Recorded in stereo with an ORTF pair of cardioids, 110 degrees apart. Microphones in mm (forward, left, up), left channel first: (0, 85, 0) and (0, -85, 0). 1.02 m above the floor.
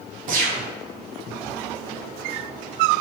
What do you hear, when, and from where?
0.3 s a gunshot: 55° right, 0.7 m